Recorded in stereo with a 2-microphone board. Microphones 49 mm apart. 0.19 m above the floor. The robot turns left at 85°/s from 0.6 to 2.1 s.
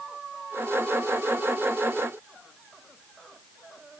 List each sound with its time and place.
Only background noise.